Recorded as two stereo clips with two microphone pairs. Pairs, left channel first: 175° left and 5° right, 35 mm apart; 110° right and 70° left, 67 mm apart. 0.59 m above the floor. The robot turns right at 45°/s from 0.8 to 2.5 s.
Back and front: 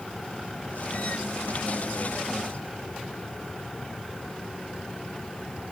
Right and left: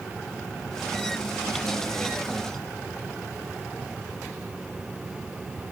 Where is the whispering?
No whispering in this recording.